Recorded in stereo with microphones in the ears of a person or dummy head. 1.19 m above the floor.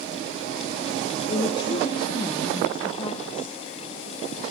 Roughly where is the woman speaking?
Left.